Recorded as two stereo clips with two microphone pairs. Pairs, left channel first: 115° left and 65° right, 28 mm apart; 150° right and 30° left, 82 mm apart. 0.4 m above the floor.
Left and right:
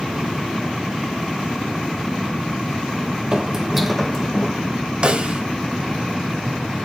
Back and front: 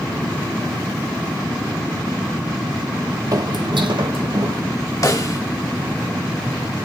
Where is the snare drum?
105° right, 1.1 m.